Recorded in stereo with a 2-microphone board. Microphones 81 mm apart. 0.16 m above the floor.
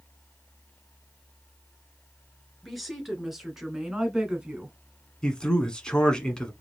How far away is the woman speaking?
About 2.5 m.